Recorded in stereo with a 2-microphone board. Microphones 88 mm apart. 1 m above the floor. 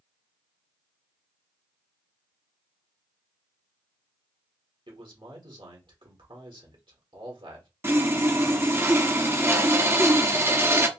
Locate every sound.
4.9 s a man speaking: 70° right (ahead or behind), 1.8 m
7.8 s sawing: 30° right (ahead or behind), 0.6 m